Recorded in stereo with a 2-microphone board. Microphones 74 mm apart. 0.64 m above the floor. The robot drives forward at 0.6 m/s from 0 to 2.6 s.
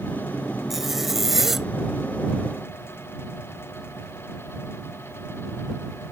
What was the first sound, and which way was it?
A zipper, 5° right (ahead or behind).